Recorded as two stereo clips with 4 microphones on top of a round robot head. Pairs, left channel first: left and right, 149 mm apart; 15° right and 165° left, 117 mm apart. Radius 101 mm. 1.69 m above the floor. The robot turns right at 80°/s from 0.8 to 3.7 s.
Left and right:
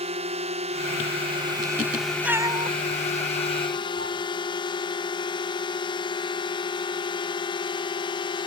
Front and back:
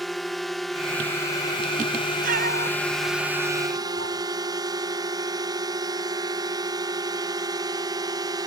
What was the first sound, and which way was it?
A drone, 100° right.